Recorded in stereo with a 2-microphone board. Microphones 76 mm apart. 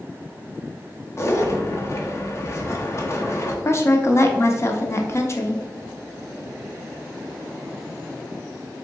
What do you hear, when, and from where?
1.2 s a zipper: 35° left (ahead or behind), 0.7 m
3.6 s a woman speaking: 35° left (ahead or behind), 0.6 m